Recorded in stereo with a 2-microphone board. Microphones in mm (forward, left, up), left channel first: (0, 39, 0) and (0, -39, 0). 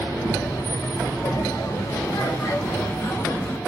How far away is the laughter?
About 2 m.